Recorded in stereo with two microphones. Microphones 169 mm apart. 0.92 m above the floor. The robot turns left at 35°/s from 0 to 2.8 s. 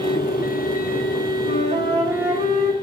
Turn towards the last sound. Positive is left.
turn(degrees=-125)